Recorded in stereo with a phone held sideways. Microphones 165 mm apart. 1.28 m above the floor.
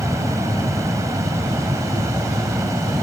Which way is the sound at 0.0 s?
20° right (ahead or behind).